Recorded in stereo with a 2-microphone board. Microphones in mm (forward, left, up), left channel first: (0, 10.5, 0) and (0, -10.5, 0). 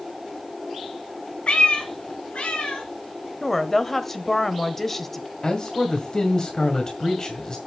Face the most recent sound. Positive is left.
turn(degrees=35)  # may be behind; listen again after turning